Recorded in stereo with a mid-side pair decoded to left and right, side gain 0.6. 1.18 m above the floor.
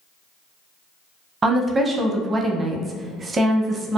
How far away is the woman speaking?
About 0.6 m.